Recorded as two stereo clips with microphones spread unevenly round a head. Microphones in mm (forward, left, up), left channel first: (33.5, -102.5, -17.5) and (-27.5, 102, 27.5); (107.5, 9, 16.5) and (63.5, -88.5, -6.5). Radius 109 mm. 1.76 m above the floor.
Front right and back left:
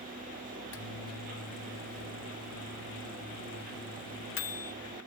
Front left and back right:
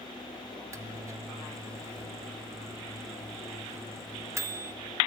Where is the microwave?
45° right, 0.9 m.